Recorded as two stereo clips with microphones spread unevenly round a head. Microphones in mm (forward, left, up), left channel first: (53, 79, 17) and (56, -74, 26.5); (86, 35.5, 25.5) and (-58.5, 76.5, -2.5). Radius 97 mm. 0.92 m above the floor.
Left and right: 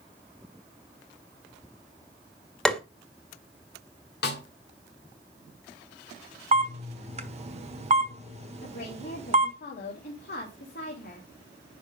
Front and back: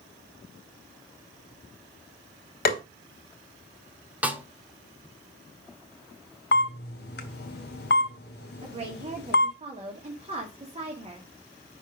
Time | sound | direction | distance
2.6 | tapping | 5° left | 1.7 m
4.2 | a snare drum | 80° left | 1.5 m
6.5 | a camera shutter | 45° right | 1.3 m
8.6 | a woman speaking | 120° left | 2 m